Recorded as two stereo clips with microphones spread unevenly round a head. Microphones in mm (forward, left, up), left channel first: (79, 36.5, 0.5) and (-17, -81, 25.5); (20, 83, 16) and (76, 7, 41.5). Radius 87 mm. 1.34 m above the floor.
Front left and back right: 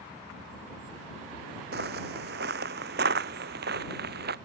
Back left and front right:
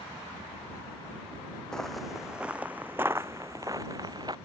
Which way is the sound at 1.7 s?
140° right.